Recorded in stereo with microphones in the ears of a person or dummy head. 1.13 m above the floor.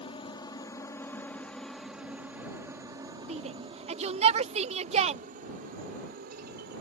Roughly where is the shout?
Right.